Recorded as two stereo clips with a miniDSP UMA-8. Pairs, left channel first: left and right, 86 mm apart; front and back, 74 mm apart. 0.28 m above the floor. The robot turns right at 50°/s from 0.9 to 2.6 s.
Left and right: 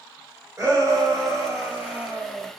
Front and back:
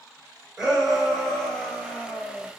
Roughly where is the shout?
Right.